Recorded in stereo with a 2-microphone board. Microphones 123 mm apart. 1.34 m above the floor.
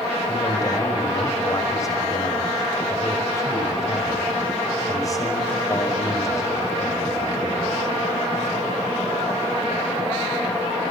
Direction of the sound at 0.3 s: 30° left (ahead or behind).